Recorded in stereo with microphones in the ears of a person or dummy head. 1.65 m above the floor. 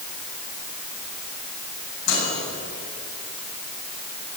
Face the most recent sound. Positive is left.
turn(degrees=75)  # may be behind; listen again after turning